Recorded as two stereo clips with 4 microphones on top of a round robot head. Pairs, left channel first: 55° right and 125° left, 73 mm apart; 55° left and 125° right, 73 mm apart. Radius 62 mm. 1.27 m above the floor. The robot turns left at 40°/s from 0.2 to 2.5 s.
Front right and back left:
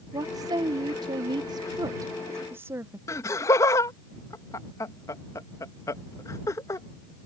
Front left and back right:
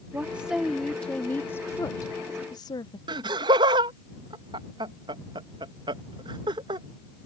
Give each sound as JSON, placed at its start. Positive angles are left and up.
{"t": 0.1, "sound": "a woman speaking", "azimuth_deg": 160}
{"t": 3.1, "sound": "laughter", "azimuth_deg": -105}